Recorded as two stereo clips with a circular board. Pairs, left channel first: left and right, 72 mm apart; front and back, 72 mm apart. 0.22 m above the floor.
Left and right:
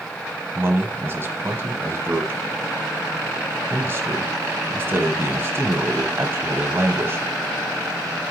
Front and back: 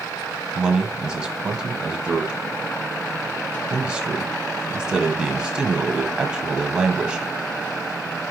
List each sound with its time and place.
0.6 s a man speaking: 110° right, 1.1 m